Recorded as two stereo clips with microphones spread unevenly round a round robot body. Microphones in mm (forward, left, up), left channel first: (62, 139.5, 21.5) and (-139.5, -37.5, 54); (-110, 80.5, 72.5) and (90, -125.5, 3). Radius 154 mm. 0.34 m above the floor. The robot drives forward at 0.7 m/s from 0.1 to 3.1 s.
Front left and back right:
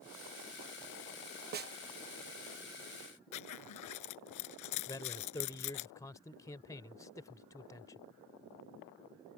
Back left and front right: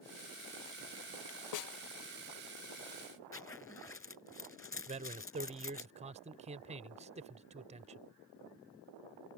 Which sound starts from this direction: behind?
A snare drum, at 1.5 s.